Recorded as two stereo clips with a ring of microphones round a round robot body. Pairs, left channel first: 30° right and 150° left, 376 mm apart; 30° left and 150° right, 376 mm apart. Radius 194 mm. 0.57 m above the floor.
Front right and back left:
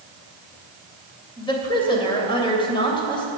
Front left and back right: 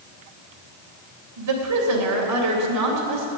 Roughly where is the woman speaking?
Right.